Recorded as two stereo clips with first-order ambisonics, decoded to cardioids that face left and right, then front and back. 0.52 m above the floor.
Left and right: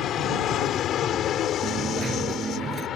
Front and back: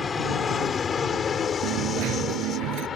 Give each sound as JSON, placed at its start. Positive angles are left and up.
{"t": 0.0, "sound": "an aircraft", "azimuth_deg": 65}
{"t": 1.6, "sound": "a dropped coin", "azimuth_deg": -155}